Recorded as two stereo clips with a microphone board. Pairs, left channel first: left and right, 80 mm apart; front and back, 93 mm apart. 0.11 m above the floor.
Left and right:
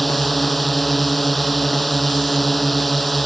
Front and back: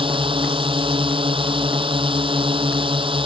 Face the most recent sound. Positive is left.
turn(degrees=180)